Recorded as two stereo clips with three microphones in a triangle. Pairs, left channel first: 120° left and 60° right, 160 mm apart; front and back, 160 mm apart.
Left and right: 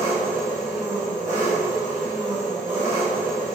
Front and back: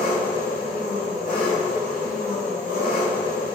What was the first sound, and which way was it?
An engine running, 10° left.